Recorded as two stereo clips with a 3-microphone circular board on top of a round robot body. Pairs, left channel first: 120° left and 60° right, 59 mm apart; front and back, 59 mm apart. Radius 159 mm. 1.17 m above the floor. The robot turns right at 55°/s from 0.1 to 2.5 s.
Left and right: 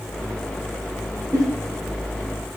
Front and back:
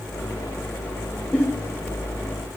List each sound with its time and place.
1.3 s a giggle: 70° right, 0.7 m; by 1.4 s 65° right, 0.7 m